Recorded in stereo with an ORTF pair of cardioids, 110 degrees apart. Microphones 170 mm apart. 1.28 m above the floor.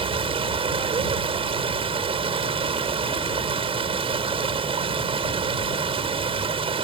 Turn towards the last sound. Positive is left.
turn(degrees=-35)